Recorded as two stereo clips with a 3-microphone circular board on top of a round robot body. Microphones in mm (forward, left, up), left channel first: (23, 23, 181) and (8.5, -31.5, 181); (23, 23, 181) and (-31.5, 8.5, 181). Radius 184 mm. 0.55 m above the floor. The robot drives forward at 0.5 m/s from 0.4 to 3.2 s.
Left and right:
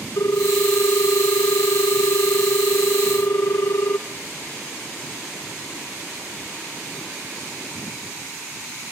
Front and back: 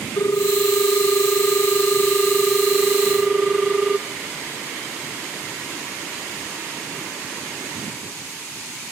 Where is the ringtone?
45° left, 1.4 m; by 4.0 s 115° left, 1.1 m.